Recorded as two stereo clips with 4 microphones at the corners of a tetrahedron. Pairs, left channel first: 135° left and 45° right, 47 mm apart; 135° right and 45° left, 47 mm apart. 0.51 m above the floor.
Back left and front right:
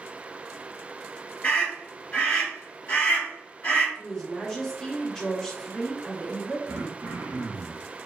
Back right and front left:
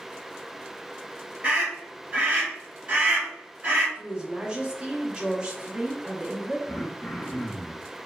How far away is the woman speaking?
About 0.7 m.